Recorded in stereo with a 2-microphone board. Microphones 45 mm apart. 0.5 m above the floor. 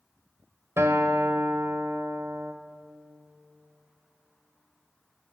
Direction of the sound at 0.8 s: 75° right (ahead or behind).